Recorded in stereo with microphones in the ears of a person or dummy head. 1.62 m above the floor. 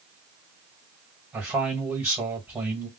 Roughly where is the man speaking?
Centre.